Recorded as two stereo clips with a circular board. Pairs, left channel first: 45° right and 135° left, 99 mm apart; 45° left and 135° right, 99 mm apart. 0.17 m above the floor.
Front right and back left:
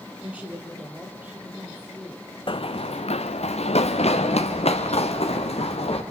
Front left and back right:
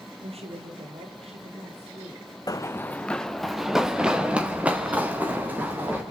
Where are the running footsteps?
10° right, 0.7 m; by 6.0 s 60° right, 3.5 m.